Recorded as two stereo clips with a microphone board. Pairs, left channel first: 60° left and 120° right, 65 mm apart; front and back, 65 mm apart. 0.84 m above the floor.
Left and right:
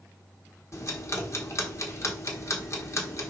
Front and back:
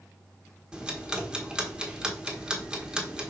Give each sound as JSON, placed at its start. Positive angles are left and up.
{"t": 0.7, "sound": "ticking", "azimuth_deg": 105, "distance_m": 1.4}